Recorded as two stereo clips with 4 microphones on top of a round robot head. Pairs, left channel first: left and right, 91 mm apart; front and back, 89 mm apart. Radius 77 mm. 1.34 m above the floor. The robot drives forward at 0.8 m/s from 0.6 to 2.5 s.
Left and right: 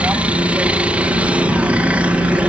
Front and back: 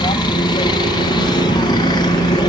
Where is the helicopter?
15° right.